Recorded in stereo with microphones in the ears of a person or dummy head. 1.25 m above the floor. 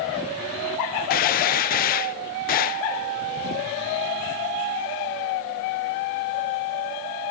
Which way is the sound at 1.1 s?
45° left (ahead or behind).